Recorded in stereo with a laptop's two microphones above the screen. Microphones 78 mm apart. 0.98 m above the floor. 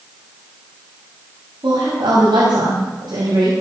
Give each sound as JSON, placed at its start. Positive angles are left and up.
{"t": 1.6, "sound": "a woman speaking", "side_deg": -75, "distance_m": 6.0}